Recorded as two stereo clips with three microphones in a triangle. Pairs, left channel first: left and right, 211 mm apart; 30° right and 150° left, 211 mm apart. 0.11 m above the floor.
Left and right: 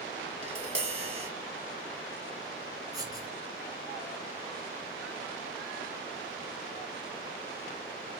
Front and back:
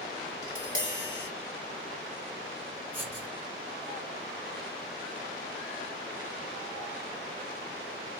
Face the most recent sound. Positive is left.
turn(degrees=-140)